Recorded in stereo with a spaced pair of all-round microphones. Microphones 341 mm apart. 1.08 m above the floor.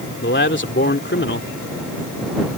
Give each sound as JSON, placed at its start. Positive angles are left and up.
{"t": 0.2, "sound": "a man speaking", "side_deg": 35}